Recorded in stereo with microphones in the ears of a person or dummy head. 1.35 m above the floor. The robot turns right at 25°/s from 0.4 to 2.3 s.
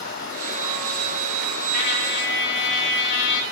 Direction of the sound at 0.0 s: 75° left.